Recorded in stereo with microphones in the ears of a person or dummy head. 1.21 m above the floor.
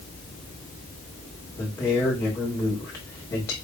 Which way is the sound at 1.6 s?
25° left (ahead or behind).